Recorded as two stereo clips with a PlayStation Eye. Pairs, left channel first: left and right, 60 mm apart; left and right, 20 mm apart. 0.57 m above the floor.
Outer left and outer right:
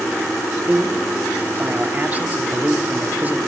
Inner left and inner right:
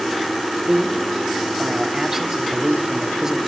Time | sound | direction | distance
0.7 | a man speaking | 25° right (ahead or behind) | 1.5 m